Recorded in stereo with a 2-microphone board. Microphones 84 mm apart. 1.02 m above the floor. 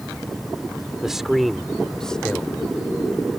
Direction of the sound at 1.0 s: 5° right (ahead or behind).